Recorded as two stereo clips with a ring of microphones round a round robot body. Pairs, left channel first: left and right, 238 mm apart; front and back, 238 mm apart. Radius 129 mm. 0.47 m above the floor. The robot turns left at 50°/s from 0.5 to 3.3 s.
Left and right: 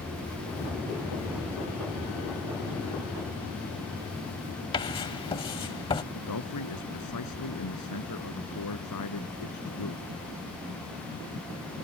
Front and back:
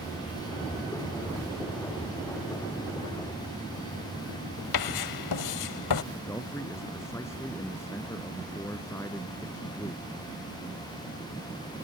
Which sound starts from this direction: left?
A man speaking, at 6.2 s.